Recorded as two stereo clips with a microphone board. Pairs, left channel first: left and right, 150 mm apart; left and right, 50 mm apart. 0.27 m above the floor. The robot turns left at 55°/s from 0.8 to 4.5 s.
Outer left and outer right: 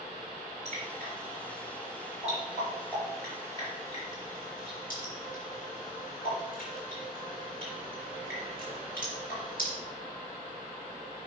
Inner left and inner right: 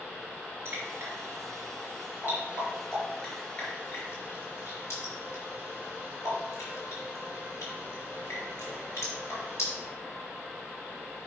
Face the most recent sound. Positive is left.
turn(degrees=70)  # may be behind; listen again after turning